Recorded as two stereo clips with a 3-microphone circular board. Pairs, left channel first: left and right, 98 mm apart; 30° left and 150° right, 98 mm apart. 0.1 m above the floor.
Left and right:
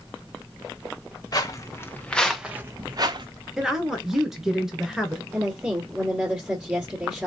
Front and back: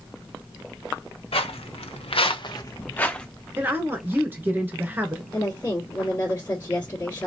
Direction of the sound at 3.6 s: 170° right.